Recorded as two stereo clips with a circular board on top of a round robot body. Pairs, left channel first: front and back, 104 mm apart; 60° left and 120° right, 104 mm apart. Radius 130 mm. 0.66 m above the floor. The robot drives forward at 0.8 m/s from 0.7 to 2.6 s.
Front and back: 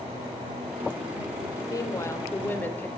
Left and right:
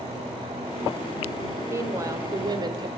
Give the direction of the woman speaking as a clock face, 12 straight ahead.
2 o'clock.